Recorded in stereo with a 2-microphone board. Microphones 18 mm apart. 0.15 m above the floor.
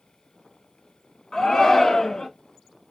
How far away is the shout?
About 1.3 m.